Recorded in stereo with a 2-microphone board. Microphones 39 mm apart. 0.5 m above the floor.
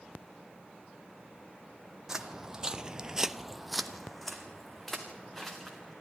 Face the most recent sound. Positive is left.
turn(degrees=5)  # may be behind; listen again after turning